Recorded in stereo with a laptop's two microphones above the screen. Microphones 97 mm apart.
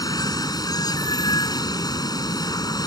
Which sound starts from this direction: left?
Running water, at 0.0 s.